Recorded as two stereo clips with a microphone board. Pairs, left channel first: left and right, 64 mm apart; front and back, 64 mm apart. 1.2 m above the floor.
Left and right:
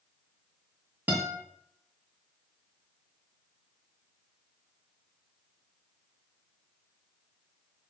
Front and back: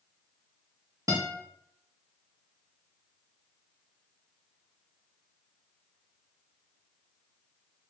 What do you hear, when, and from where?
1.1 s a guitar: 150° right, 1.7 m